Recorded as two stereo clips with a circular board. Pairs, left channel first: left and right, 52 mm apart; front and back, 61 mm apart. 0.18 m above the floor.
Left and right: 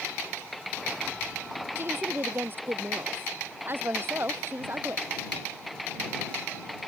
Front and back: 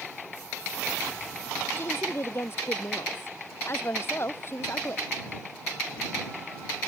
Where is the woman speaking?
45° right.